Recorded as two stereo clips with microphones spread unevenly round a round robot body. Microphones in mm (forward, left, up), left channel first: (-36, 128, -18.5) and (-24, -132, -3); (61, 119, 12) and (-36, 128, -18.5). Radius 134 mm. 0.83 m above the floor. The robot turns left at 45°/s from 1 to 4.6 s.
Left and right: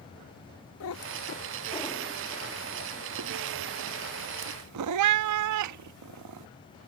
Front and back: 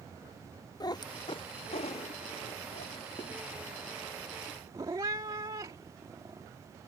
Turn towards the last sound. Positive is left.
turn(degrees=-110)